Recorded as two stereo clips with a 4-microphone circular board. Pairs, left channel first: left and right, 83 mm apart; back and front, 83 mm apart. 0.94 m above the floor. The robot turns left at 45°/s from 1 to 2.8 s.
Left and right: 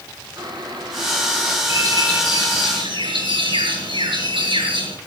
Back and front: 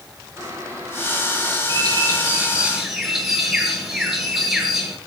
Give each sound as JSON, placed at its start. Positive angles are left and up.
{"t": 0.4, "sound": "boiling", "azimuth_deg": -55, "distance_m": 6.5}
{"t": 1.7, "sound": "a bird", "azimuth_deg": -35, "distance_m": 6.5}